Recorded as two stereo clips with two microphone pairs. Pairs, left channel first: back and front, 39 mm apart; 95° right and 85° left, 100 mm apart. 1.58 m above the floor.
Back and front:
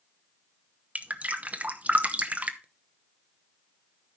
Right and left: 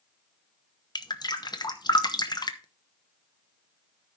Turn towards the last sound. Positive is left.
turn(degrees=-55)